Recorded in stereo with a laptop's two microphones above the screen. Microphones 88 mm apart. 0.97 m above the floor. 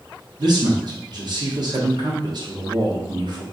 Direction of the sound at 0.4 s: 55° right (ahead or behind).